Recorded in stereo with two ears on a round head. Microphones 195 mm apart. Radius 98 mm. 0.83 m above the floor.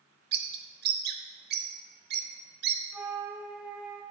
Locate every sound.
0.3 s a bird: 50° right (ahead or behind), 0.9 m
2.9 s a flute: 5° right (ahead or behind), 0.9 m